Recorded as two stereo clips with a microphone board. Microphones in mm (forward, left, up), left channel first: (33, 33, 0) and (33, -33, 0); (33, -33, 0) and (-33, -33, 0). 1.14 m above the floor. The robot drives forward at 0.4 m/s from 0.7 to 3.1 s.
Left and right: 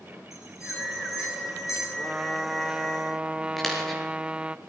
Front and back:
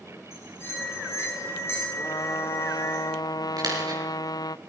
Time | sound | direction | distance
0.3 | a bell | 50° left | 9.5 m
2.0 | a trumpet | 10° right | 0.9 m
3.6 | a dropped coin | 175° left | 6.5 m